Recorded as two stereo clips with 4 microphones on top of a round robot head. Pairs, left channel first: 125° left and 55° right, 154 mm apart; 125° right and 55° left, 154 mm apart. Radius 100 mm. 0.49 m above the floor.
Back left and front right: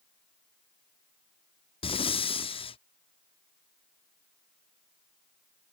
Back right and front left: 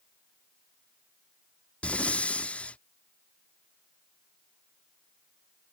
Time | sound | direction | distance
1.8 | breathing | 155° left | ?